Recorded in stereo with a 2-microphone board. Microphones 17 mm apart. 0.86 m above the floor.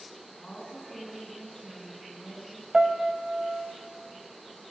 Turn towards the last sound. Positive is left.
turn(degrees=-60)  # may be behind; listen again after turning